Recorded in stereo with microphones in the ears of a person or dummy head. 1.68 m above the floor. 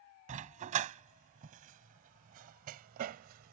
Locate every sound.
0.3 s a dog barking: 35° right (ahead or behind); by 3.5 s 45° right (ahead or behind)